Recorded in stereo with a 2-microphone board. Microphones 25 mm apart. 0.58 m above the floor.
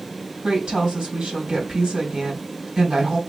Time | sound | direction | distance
0.4 | a woman speaking | 30° right (ahead or behind) | 3 m